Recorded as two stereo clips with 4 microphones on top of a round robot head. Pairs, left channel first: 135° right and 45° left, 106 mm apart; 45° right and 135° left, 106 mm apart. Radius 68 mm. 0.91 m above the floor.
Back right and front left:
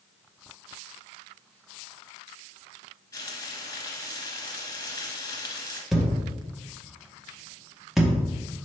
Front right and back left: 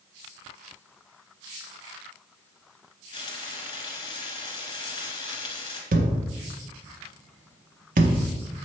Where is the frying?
90° right, 1.9 m.